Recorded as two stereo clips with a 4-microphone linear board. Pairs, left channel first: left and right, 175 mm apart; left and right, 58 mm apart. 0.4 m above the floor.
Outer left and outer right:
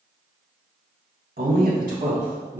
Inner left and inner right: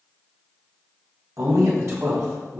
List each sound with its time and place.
1.4 s a man speaking: 65° right (ahead or behind), 3.5 m; by 2.6 s 55° right (ahead or behind), 4.5 m